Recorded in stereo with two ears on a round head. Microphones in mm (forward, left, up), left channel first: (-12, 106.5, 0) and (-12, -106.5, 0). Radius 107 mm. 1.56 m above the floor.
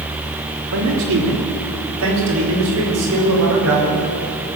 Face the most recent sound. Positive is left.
turn(degrees=-60)  # may be behind; listen again after turning